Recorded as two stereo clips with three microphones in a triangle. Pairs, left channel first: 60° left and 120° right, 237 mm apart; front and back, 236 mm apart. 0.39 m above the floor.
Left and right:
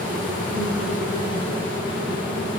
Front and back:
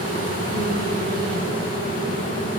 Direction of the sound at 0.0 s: 175° right.